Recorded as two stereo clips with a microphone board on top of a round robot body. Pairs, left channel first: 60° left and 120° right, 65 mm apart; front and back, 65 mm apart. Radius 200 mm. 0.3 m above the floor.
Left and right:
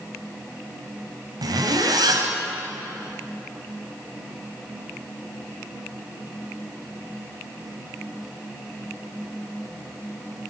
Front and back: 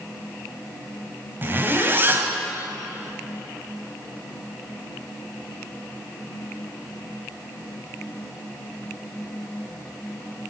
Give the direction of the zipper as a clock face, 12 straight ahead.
4 o'clock.